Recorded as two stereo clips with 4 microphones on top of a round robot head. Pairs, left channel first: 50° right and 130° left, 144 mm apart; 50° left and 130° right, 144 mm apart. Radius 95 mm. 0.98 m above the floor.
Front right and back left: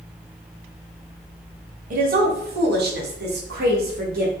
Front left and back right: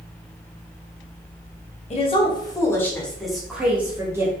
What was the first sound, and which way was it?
A woman speaking, 100° left.